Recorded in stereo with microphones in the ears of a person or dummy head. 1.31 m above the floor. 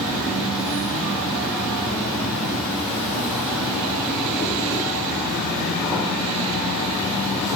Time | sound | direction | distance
0.0 | an insect | 5° left (ahead or behind) | 0.8 m